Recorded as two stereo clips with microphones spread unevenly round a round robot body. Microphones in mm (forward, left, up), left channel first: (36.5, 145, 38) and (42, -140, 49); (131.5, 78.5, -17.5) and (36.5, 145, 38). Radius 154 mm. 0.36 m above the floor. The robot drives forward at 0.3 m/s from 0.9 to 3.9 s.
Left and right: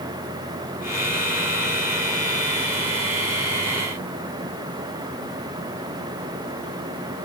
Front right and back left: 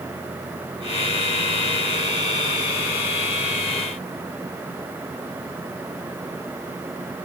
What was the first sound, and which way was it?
Only background noise.